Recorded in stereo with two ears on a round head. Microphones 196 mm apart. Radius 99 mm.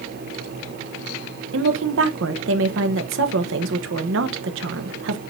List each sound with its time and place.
1.5 s a woman speaking: 65° right (ahead or behind), 1.1 m